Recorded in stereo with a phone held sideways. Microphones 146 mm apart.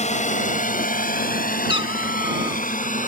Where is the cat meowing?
35° right (ahead or behind).